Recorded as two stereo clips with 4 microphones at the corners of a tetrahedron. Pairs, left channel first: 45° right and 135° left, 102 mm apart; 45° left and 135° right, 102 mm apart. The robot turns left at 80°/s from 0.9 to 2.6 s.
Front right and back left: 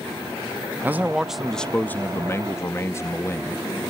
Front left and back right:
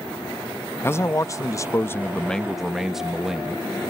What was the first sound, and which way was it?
A man speaking, 85° left.